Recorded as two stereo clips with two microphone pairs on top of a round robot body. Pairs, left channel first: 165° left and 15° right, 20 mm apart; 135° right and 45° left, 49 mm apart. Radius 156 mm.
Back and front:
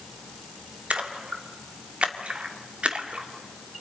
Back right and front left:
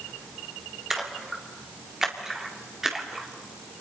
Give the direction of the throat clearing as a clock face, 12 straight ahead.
I don't hear throat clearing.